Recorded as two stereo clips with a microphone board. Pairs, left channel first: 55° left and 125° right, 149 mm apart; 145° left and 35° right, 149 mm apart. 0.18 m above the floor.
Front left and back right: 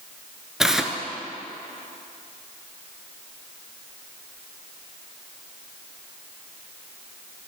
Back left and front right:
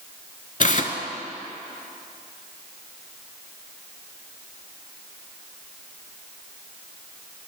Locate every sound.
0.6 s tearing paper: 150° left, 0.5 m